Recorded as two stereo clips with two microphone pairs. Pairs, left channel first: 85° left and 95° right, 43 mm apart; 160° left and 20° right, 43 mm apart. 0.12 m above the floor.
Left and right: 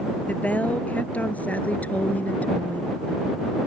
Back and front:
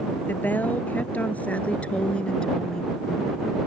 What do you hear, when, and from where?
0.3 s a woman speaking: 130° left; by 3.0 s 90° left